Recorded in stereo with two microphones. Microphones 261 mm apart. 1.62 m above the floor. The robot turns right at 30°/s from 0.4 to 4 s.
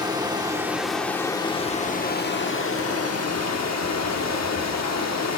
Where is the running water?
15° right, 1.1 m; by 5.4 s 95° left, 1.1 m.